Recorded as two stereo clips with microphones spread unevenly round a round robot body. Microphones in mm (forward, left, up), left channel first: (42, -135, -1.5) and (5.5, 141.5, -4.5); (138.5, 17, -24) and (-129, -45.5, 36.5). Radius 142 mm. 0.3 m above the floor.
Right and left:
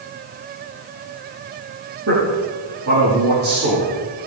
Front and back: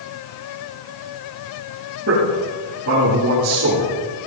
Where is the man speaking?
145° left, 8.5 m.